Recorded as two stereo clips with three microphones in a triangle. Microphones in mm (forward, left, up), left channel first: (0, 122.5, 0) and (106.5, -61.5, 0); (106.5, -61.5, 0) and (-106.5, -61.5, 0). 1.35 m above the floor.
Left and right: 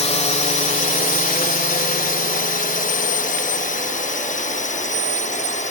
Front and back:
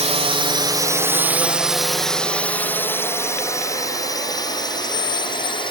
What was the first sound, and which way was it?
A drone, 150° left.